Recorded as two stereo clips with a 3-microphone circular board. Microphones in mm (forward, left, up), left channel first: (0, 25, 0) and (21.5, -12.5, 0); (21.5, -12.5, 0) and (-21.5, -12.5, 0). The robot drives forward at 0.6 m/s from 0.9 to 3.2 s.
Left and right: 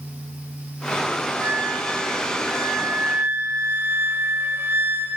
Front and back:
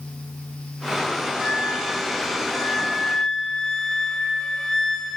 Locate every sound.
1.4 s a flute: 65° right, 4 m; by 5.2 s 80° right, 4 m